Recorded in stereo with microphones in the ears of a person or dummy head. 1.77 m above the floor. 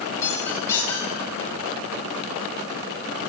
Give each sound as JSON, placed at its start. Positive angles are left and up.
{"t": 0.2, "sound": "a squeak", "side_deg": 20, "distance_m": 9.0}